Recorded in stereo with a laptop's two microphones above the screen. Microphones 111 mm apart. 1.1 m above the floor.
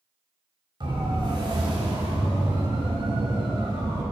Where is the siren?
45° right (ahead or behind), 5 m; by 4.0 s 40° right (ahead or behind), 8.5 m.